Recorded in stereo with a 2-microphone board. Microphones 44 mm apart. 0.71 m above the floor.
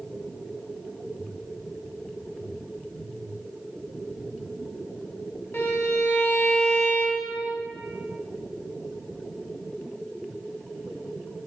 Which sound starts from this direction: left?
A violin, at 5.5 s.